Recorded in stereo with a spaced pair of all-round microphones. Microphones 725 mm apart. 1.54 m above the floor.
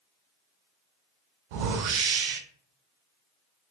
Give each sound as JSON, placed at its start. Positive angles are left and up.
{"t": 1.5, "sound": "a whoosh", "side_deg": -80, "distance_m": 0.6}